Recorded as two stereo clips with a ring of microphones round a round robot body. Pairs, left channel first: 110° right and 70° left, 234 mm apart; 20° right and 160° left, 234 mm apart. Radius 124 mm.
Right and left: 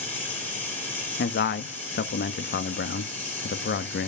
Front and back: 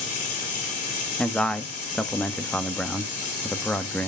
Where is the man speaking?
105° right, 0.9 m.